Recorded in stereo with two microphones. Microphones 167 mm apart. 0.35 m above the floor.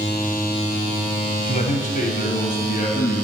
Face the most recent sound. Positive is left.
turn(degrees=55)  # may be behind; listen again after turning